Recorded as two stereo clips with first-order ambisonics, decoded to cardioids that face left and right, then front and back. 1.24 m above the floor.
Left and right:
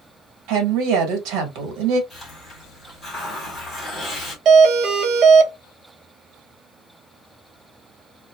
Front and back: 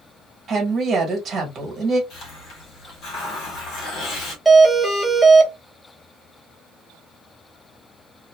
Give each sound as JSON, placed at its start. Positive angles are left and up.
{"t": 0.5, "sound": "a woman speaking", "azimuth_deg": -115, "distance_m": 1.3}
{"t": 2.1, "sound": "a hiss", "azimuth_deg": 15, "distance_m": 1.4}
{"t": 4.5, "sound": "a doorbell", "azimuth_deg": -95, "distance_m": 0.5}